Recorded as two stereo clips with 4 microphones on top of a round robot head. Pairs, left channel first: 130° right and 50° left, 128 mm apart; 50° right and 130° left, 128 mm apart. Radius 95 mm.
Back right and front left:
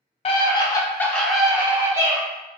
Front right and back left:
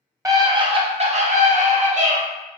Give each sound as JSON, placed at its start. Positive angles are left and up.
{"t": 0.2, "sound": "a scream", "azimuth_deg": -165, "distance_m": 0.9}